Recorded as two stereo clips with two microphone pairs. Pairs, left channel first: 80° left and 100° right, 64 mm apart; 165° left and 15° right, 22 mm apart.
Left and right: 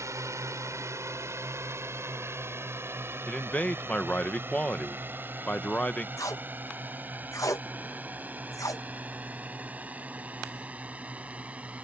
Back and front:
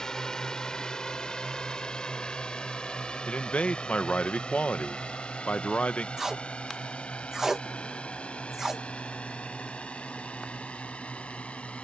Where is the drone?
135° right; by 11.9 s 165° right.